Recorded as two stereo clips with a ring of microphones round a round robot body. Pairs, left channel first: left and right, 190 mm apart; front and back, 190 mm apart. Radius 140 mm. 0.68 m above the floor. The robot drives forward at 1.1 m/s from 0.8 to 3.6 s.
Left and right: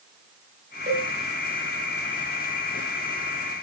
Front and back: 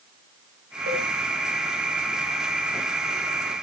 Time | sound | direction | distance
0.9 | a cowbell | 150° right | 4.5 m